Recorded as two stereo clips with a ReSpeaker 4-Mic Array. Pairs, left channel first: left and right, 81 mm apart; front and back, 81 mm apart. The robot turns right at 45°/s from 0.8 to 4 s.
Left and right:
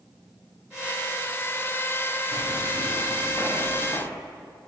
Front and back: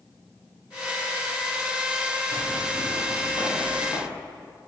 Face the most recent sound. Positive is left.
turn(degrees=50)